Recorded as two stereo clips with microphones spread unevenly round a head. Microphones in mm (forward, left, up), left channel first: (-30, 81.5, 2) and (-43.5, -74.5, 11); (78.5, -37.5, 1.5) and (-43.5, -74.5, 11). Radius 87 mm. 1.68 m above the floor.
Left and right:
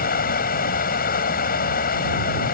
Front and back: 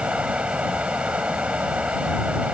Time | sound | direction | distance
0.0 | running water | 115° left | ?